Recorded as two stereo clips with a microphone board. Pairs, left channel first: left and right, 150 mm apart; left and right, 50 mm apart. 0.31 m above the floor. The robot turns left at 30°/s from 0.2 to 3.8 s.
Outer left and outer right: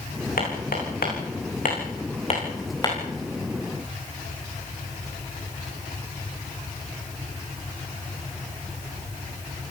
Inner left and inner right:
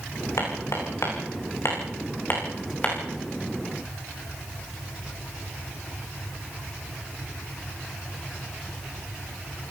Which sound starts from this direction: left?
Hammering, at 0.4 s.